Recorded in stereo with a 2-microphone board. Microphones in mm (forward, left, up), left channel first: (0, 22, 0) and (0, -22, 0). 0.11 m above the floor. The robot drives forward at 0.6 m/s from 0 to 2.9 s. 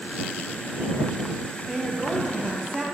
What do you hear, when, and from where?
1.7 s a woman speaking: 5° left (ahead or behind), 2.5 m